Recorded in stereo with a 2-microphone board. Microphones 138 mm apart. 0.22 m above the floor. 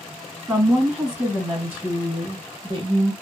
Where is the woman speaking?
Centre (ahead or behind), 1.6 m; by 3.1 s 35° right (ahead or behind), 1.3 m.